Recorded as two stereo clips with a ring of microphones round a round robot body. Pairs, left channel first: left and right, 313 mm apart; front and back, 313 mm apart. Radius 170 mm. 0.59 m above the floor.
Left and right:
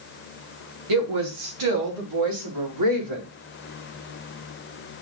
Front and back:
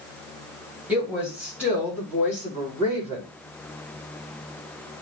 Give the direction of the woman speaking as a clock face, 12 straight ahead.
3 o'clock.